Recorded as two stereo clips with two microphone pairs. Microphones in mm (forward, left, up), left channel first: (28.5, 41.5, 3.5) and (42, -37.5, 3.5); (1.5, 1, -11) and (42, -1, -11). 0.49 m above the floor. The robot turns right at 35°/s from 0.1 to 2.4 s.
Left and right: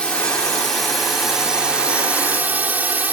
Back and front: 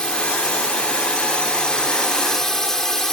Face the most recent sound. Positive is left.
turn(degrees=-120)